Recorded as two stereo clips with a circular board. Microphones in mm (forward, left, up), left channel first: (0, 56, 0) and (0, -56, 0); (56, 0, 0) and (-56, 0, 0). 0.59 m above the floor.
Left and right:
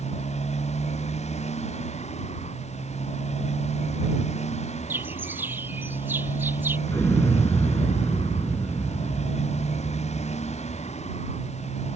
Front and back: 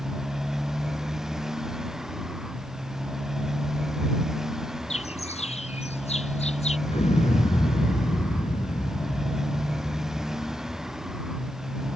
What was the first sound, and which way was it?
A motorcycle, 95° left.